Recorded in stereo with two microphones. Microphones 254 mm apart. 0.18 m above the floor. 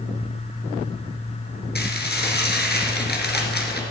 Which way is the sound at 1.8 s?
40° left (ahead or behind).